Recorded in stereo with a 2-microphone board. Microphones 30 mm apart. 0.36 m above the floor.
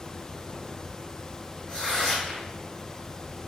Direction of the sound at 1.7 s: 35° left (ahead or behind).